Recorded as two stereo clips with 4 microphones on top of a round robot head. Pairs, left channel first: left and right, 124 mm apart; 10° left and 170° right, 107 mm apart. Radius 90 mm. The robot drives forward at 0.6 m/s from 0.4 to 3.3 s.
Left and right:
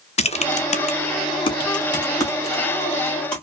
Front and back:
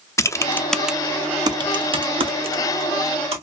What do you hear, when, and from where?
0.2 s typing on a keyboard: 70° left, 0.6 m; by 3.4 s 165° left, 1.7 m